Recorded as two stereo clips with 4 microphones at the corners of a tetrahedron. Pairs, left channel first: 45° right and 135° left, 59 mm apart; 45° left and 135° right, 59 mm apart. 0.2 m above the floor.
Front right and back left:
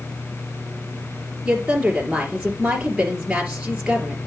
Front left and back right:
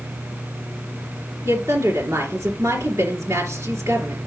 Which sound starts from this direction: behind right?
A woman speaking, at 1.4 s.